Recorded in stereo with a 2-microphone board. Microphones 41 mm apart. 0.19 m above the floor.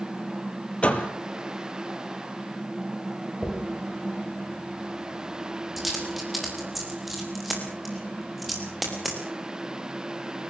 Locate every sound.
0.8 s a door slam: 30° left (ahead or behind), 3.5 m
3.4 s a dropped coin: centre (ahead or behind), 8 m